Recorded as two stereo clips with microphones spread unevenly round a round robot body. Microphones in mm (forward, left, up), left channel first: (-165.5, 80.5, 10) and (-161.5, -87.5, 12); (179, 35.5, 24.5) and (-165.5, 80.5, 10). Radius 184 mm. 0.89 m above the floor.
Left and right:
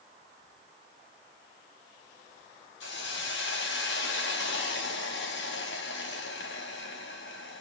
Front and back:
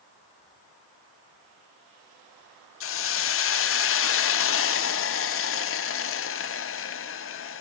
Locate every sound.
2.8 s a hiss: 50° left, 0.7 m